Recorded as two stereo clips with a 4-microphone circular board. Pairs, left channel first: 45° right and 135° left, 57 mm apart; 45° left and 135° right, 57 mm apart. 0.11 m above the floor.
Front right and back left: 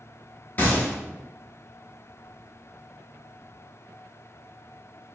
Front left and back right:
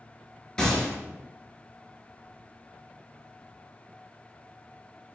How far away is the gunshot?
About 0.9 m.